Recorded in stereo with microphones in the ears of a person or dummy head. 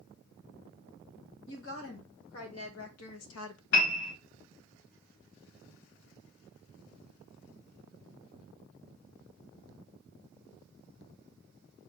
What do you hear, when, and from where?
1.5 s a woman speaking: 80° left, 1.8 m; by 3.6 s 65° left (ahead or behind), 0.5 m
3.7 s a piano: 65° left (ahead or behind), 1.1 m